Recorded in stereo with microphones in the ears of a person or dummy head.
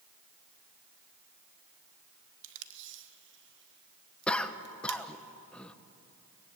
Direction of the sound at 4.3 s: 5° left (ahead or behind).